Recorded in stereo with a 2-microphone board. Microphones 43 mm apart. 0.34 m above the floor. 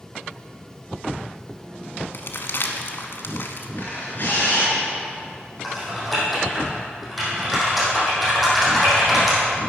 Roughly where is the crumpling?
Left.